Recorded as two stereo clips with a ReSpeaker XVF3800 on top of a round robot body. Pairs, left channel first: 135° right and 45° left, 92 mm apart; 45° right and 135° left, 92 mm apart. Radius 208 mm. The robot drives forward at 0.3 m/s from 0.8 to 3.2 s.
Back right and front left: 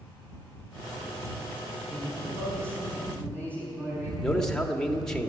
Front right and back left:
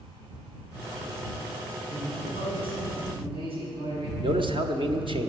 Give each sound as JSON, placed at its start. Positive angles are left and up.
{"t": 1.9, "sound": "a man speaking", "azimuth_deg": 110, "distance_m": 6.5}
{"t": 4.2, "sound": "a man speaking", "azimuth_deg": 140, "distance_m": 1.8}